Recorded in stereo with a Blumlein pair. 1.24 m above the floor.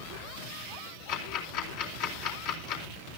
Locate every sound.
1.1 s ticking: 45° left, 4 m